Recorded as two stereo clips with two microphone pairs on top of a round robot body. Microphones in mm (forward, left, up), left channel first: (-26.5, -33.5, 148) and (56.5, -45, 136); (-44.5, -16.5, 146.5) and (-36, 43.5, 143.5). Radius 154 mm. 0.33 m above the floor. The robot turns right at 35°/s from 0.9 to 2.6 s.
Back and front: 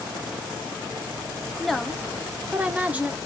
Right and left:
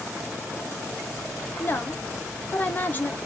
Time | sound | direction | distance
1.6 | a woman speaking | 95° right | 1.1 m